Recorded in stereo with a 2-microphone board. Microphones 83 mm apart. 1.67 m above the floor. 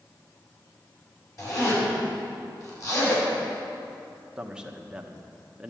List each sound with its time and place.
1.4 s a zipper: 40° left (ahead or behind), 6 m
4.4 s a man speaking: 10° right (ahead or behind), 1.3 m